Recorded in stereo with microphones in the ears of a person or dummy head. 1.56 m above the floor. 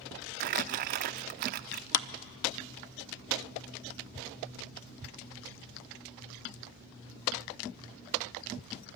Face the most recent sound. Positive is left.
turn(degrees=65)  # may be behind; listen again after turning